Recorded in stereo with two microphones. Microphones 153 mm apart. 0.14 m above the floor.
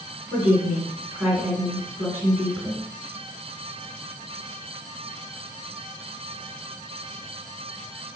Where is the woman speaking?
10° right (ahead or behind), 1.8 m.